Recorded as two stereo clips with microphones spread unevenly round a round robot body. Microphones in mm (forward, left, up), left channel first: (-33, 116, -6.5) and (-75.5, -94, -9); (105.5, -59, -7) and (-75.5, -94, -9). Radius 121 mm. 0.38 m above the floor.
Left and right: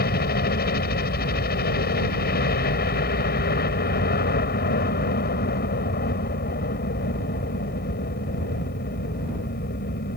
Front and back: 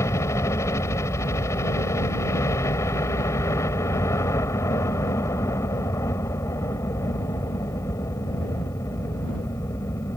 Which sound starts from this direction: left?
A helicopter, at 0.0 s.